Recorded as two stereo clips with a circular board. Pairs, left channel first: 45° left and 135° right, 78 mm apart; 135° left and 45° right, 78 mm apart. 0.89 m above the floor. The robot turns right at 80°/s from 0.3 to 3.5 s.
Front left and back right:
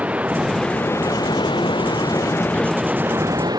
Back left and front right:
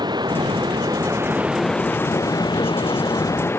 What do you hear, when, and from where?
0.0 s running water: 60° right; by 3.6 s 165° right